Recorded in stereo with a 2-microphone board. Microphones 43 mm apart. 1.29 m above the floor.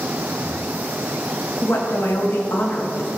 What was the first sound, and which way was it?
A woman speaking, 70° left (ahead or behind).